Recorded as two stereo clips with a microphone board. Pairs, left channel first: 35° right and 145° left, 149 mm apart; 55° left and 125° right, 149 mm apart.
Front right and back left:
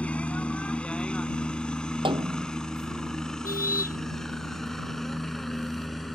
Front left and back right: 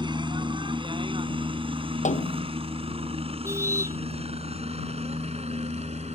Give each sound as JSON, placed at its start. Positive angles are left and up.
{"t": 0.0, "sound": "a helicopter", "azimuth_deg": -110}
{"t": 2.0, "sound": "a snare drum", "azimuth_deg": 90}
{"t": 3.4, "sound": "a car horn", "azimuth_deg": -55}